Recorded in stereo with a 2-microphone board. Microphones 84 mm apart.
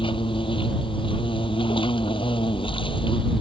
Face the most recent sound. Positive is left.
turn(degrees=90)